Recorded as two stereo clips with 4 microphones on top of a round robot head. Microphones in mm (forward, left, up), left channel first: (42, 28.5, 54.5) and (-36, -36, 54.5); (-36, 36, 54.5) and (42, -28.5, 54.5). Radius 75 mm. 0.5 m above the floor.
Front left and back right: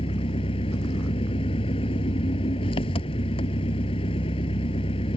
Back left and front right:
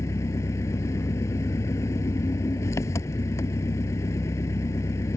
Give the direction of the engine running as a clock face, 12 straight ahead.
9 o'clock.